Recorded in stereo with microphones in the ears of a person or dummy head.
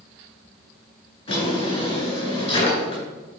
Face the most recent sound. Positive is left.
turn(degrees=25)  # may be behind; listen again after turning